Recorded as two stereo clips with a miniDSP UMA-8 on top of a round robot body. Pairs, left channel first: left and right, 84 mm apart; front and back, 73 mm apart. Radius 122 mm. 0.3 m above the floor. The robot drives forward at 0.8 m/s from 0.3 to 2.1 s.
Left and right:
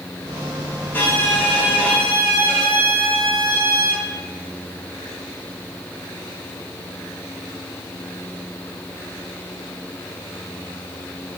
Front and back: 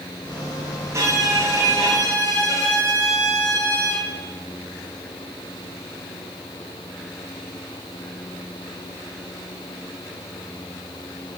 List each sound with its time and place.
0.9 s a violin: 150° left, 2 m; by 4.0 s 160° left, 3 m